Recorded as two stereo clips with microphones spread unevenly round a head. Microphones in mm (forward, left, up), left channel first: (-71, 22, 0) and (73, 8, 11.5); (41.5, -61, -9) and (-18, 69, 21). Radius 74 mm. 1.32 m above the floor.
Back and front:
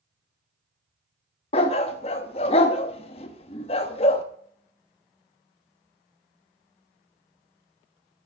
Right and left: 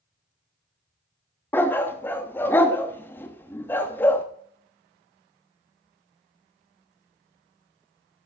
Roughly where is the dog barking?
Behind right.